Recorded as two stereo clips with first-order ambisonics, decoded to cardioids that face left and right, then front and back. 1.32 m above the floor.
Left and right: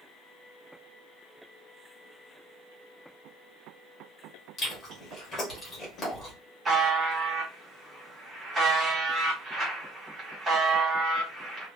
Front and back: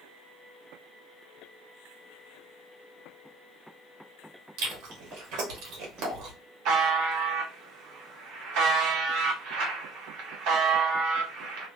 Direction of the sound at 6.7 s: 165° right.